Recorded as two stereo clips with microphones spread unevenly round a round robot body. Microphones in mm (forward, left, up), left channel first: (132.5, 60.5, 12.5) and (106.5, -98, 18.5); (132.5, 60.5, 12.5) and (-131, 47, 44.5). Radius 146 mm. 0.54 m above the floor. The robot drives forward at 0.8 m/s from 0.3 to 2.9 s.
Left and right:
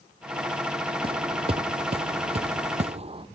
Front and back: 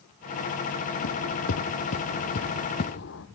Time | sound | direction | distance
1.0 | footsteps | 45° right | 1.2 m